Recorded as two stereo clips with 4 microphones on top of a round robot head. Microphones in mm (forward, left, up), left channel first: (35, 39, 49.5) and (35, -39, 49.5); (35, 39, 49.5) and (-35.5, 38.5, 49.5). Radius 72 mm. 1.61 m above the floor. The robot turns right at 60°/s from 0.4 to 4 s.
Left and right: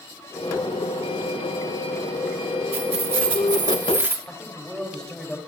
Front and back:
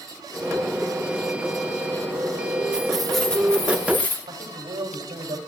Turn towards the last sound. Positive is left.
turn(degrees=170)